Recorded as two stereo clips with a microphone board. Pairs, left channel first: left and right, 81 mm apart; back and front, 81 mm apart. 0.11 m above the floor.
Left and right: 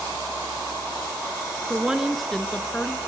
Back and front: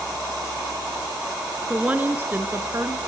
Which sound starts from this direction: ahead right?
A woman speaking, at 1.7 s.